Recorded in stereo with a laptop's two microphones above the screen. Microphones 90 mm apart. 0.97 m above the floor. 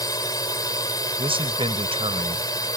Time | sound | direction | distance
0.0 | a drone | 40° left (ahead or behind) | ?
1.2 | a man speaking | 80° right | ?